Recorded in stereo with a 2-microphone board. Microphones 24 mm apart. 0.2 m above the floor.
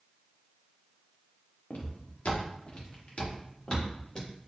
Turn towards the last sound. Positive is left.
turn(degrees=35)  # may be behind; listen again after turning